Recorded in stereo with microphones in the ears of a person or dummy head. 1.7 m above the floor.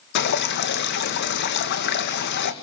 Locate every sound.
0.1 s dripping: 55° left (ahead or behind), 1.9 m